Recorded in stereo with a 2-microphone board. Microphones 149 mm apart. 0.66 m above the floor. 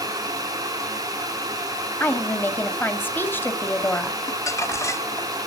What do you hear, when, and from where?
2.0 s a woman speaking: 15° left (ahead or behind), 1.5 m
4.3 s crumpling: 20° left (ahead or behind), 0.9 m